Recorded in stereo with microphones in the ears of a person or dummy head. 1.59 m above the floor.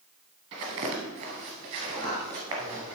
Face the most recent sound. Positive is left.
turn(degrees=5)  # may be behind; listen again after turning